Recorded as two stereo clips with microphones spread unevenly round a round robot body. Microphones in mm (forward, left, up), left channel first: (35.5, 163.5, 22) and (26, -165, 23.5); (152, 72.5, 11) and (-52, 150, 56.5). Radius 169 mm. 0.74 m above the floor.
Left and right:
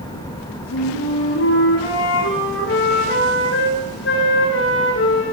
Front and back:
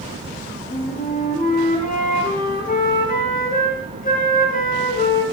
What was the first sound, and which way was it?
A flute, 35° left.